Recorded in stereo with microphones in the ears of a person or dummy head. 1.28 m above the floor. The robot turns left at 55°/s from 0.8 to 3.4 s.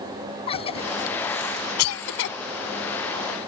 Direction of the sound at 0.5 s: 30° left (ahead or behind).